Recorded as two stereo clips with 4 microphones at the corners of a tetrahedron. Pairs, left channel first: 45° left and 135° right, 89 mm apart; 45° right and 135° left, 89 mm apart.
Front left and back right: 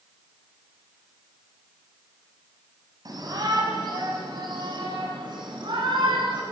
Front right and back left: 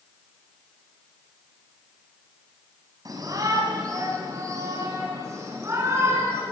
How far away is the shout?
About 6.5 m.